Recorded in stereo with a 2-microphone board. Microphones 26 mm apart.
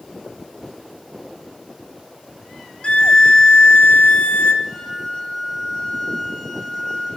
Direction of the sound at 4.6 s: 15° left (ahead or behind).